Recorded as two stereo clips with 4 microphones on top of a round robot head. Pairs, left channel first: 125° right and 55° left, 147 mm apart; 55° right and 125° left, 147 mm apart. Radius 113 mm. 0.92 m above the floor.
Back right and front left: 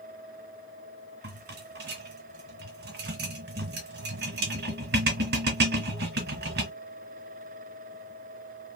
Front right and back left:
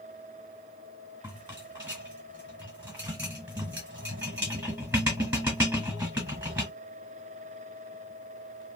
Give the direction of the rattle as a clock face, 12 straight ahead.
10 o'clock.